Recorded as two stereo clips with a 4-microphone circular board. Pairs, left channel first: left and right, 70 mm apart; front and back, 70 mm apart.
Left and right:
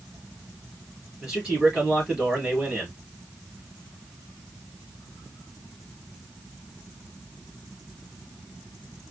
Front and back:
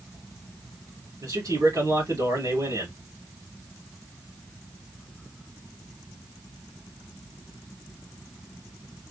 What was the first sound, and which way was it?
A man speaking, 170° right.